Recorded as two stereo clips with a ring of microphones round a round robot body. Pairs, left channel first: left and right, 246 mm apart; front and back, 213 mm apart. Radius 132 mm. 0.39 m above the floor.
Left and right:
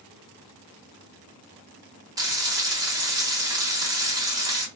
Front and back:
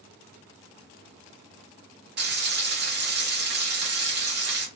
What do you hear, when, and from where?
2.2 s frying: 165° right, 1.0 m